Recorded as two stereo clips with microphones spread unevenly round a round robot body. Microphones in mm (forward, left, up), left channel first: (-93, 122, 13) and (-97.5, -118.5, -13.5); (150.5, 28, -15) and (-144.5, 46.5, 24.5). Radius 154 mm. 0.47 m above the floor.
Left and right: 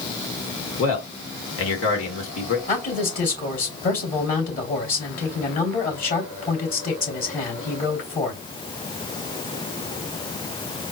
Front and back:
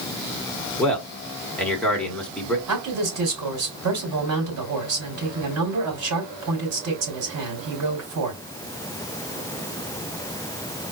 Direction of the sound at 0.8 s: 75° left.